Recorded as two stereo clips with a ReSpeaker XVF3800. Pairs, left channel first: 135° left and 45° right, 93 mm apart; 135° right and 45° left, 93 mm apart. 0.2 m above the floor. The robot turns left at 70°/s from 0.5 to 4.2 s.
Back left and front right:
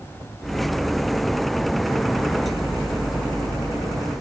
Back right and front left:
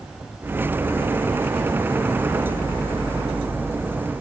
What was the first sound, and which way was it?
Only background noise.